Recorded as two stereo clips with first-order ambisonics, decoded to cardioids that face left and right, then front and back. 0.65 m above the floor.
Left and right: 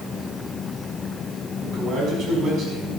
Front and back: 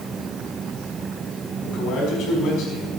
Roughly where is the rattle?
I don't hear a rattle.